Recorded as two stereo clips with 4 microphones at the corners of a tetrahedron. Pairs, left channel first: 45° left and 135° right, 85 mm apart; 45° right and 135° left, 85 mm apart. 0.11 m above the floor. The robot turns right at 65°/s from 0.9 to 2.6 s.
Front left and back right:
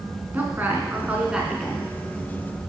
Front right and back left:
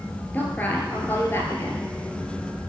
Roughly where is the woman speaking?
Right.